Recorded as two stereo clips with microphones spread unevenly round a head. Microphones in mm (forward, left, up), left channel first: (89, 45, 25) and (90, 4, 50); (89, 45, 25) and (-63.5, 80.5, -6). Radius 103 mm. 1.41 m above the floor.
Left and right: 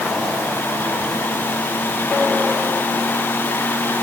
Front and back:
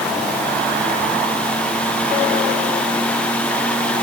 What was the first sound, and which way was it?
Only background noise.